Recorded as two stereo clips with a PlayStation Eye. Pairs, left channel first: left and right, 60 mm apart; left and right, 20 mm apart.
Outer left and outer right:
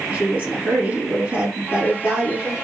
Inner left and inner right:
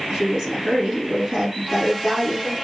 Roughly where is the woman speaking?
Right.